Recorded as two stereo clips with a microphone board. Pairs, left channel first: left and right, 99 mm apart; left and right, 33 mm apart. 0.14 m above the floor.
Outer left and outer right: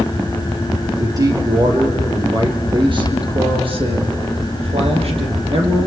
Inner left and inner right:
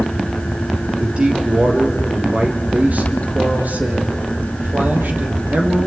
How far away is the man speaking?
About 3.5 m.